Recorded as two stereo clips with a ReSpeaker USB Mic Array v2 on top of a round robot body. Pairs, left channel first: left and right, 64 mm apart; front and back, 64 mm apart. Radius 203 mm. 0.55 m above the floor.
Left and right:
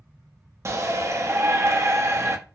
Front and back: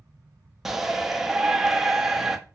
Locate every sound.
0.7 s a shout: 100° right, 0.8 m